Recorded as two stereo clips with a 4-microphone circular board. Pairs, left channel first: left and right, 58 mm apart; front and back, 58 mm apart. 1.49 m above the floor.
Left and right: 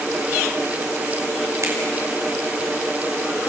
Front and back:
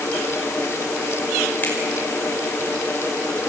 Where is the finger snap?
55° right, 5.5 m.